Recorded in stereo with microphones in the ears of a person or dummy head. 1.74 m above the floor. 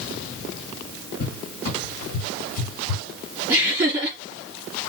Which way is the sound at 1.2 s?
45° left (ahead or behind).